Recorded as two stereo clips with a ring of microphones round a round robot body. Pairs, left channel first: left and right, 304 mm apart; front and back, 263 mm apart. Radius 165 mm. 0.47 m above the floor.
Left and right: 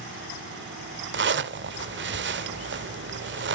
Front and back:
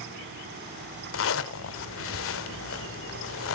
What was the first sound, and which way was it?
A zipper, 40° right.